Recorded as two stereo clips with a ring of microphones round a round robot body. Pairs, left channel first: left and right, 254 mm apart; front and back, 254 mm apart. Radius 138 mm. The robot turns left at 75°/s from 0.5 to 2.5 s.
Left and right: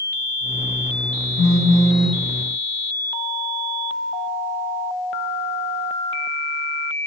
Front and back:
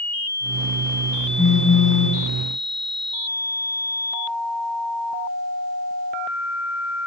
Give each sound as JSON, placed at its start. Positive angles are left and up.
{"t": 1.4, "sound": "a phone buzzing", "azimuth_deg": 45, "distance_m": 3.5}